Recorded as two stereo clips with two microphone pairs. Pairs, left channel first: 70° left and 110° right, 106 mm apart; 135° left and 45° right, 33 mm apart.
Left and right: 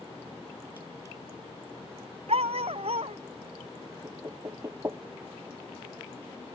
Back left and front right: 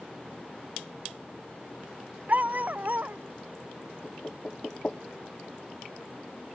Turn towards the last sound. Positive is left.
turn(degrees=-170)